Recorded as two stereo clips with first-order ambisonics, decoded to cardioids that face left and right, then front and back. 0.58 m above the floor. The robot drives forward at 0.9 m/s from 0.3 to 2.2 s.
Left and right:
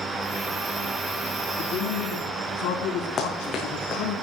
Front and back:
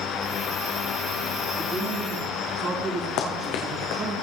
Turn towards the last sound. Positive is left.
turn(degrees=30)